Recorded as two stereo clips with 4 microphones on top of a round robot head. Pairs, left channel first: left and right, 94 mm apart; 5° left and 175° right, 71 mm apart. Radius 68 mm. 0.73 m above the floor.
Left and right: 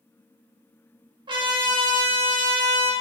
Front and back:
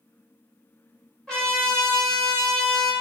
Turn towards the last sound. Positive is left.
turn(degrees=-75)